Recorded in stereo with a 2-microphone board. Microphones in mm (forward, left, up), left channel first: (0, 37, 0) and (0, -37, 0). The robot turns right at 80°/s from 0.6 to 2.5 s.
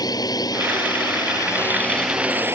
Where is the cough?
I don't hear a cough.